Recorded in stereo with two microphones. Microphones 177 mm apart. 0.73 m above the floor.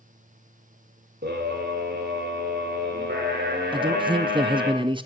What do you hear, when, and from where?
1.2 s a scream: 70° right (ahead or behind), 2 m
3.7 s a man speaking: 30° right (ahead or behind), 0.5 m